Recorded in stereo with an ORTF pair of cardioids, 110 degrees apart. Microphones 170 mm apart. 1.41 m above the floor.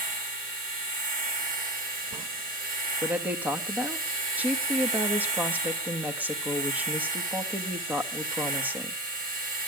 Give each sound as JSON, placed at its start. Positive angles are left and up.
{"t": 0.0, "sound": "a machine running", "azimuth_deg": -55, "distance_m": 7.0}
{"t": 3.0, "sound": "a woman speaking", "azimuth_deg": -10, "distance_m": 1.8}